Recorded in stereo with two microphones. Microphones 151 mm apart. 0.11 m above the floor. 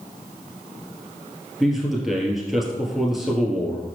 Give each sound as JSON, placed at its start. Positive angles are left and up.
{"t": 1.6, "sound": "a man speaking", "side_deg": 0, "distance_m": 2.0}